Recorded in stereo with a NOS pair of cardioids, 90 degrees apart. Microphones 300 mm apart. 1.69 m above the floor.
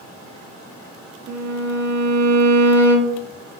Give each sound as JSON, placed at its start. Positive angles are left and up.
{"t": 1.3, "sound": "a violin", "azimuth_deg": -65, "distance_m": 0.6}